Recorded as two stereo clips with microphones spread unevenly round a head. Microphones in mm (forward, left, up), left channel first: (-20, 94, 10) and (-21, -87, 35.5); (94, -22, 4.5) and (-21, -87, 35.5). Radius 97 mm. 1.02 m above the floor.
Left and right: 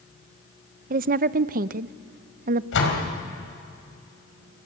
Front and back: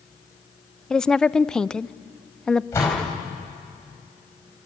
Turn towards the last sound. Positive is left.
turn(degrees=110)